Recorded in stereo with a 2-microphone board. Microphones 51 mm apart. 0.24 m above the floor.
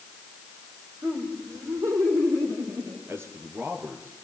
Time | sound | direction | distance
1.0 | laughter | 80° right | 8 m
3.1 | a man speaking | 50° right (ahead or behind) | 4.5 m